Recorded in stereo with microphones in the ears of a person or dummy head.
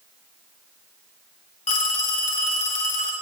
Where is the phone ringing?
45° left (ahead or behind), 1.5 m.